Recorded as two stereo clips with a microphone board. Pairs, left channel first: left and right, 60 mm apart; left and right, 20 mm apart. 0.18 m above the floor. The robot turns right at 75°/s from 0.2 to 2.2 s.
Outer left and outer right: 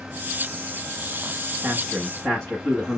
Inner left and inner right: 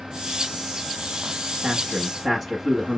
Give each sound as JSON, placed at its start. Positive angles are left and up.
{"t": 1.6, "sound": "a man speaking", "azimuth_deg": -20, "distance_m": 1.3}